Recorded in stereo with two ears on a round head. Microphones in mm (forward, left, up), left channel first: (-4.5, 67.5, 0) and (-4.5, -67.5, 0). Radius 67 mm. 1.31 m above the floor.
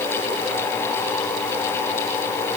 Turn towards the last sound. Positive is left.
No sound to turn to.